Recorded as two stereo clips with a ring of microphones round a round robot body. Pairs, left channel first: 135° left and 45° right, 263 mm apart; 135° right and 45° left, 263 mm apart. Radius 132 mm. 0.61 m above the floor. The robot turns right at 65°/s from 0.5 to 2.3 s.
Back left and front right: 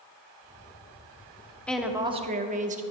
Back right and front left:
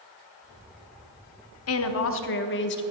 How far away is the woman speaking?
About 0.9 m.